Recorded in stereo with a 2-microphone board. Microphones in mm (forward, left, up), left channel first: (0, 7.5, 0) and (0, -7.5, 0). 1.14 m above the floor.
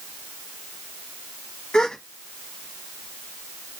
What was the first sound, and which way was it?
A gasp, 85° left.